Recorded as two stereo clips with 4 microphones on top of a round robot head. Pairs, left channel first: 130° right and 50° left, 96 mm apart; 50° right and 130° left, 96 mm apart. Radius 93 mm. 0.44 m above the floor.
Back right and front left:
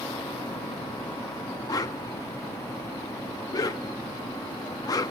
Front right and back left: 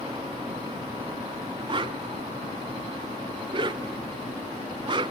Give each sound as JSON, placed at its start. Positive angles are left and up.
{"t": 1.7, "sound": "a whoosh", "azimuth_deg": 175, "distance_m": 0.5}